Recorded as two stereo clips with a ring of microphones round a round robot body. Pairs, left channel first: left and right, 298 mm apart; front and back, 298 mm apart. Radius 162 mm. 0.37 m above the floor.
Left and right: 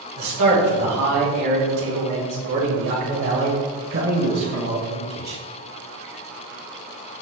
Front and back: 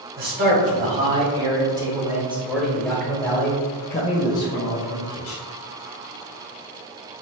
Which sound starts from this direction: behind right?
A man speaking, at 0.2 s.